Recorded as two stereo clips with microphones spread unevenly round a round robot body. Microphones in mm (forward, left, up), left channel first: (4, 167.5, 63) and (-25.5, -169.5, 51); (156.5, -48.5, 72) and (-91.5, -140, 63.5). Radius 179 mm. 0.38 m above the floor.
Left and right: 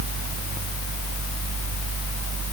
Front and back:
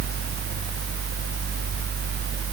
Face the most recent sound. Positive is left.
No sound to turn to.